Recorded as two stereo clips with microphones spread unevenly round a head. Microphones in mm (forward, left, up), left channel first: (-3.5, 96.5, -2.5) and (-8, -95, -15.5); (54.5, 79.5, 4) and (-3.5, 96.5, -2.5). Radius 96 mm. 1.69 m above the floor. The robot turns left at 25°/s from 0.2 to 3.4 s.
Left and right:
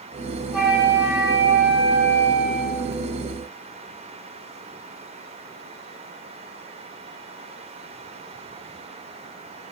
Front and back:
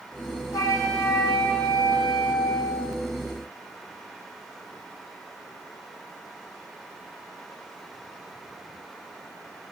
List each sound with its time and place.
0.5 s a flute: 5° right, 3.5 m; by 2.9 s 65° right, 3.5 m